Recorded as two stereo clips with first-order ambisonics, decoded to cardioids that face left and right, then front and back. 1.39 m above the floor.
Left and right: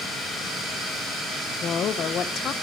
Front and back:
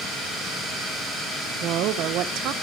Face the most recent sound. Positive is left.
turn(degrees=145)